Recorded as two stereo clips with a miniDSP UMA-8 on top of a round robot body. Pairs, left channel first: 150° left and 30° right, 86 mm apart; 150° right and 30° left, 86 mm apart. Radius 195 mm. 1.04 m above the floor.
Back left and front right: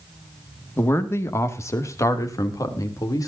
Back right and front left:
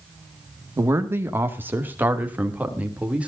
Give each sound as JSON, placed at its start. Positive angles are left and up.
{"t": 0.8, "sound": "a man speaking", "azimuth_deg": 85, "distance_m": 2.0}